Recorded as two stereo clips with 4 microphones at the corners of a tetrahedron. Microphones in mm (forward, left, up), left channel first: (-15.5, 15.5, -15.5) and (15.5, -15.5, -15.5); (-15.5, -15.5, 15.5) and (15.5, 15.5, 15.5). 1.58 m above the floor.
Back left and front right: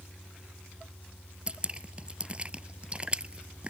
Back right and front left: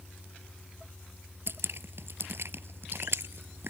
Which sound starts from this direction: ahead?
Dripping, at 1.5 s.